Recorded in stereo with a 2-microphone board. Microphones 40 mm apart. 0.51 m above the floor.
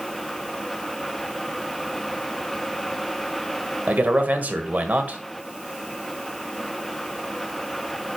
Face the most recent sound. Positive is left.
turn(degrees=-45)  # may be behind; listen again after turning